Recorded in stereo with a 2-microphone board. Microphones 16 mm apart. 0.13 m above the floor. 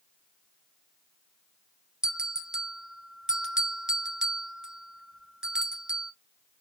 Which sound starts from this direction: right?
A bell, at 2.0 s.